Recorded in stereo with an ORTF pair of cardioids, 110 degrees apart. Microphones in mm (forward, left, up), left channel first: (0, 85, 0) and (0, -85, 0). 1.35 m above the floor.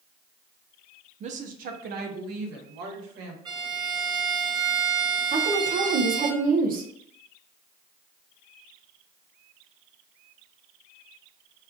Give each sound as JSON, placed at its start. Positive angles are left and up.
{"t": 1.2, "sound": "a woman speaking", "azimuth_deg": -40, "distance_m": 0.5}
{"t": 3.5, "sound": "a violin", "azimuth_deg": -25, "distance_m": 0.9}
{"t": 5.3, "sound": "a woman speaking", "azimuth_deg": -55, "distance_m": 0.9}